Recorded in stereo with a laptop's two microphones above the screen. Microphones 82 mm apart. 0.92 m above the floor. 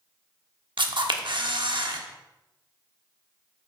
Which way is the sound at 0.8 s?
70° right (ahead or behind).